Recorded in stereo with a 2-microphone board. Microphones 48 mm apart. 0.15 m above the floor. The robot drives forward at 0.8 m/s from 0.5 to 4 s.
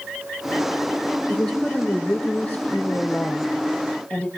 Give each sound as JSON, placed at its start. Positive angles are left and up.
{"t": 1.3, "sound": "a woman speaking", "side_deg": 15, "distance_m": 6.0}